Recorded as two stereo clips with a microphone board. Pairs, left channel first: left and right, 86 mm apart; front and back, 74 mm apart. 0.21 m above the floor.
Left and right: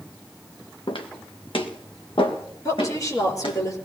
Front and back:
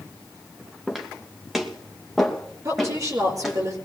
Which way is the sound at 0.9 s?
95° left.